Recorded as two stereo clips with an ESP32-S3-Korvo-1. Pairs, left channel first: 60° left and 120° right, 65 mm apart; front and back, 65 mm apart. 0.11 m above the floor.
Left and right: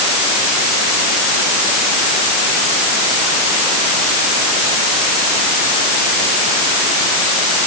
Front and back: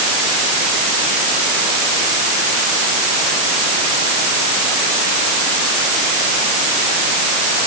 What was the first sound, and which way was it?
Only background noise.